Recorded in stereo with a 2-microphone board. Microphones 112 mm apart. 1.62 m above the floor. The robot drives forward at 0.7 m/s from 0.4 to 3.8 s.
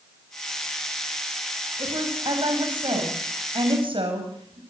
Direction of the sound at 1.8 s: 45° right (ahead or behind).